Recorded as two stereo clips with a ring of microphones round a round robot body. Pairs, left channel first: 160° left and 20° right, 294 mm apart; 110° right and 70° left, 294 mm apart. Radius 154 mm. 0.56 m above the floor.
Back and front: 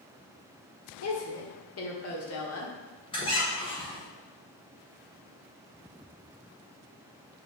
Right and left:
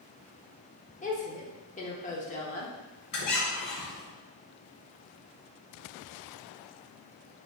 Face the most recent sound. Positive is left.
turn(degrees=-130)